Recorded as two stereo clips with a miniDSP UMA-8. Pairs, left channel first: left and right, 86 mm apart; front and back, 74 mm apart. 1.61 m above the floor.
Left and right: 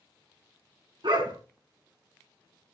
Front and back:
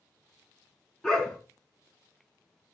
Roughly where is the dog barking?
Right.